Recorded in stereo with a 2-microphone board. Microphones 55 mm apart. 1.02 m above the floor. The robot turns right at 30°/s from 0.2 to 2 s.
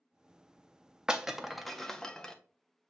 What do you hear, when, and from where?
1.1 s breaking glass: 15° right (ahead or behind), 0.5 m; by 2.3 s 10° left (ahead or behind), 0.5 m